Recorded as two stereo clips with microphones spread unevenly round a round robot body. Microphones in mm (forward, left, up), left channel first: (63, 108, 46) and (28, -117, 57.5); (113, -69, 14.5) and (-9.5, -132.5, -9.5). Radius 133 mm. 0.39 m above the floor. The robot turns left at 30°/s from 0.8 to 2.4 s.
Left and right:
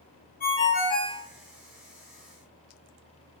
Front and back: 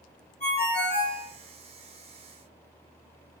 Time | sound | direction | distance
0.4 | a ringtone | 55° left | 0.8 m